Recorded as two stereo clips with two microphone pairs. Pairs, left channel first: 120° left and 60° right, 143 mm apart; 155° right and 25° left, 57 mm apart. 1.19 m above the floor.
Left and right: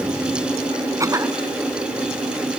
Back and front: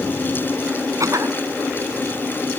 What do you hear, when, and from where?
1.0 s a cough: 5° left